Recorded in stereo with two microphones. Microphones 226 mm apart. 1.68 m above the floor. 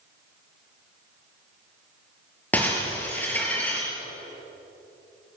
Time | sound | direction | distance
2.5 | breaking glass | 5° left (ahead or behind) | 5.5 m